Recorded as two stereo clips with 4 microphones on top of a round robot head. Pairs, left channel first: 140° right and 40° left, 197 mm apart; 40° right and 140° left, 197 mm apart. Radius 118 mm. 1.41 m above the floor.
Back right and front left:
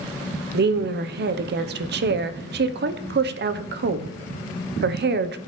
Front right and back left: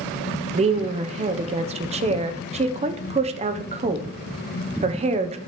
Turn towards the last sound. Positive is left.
turn(degrees=80)